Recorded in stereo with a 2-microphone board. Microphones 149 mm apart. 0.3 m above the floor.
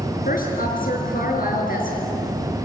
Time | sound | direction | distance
0.2 | a woman speaking | 65° left (ahead or behind) | 5.5 m